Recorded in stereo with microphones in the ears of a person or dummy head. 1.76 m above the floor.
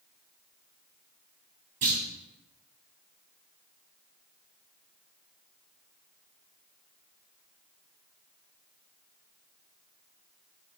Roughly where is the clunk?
Right.